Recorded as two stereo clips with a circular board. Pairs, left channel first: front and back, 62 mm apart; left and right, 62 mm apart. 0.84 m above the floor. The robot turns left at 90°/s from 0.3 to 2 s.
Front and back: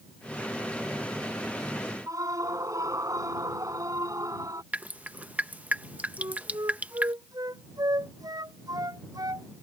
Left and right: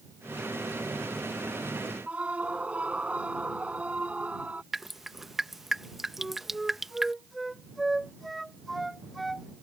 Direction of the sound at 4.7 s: 170° right.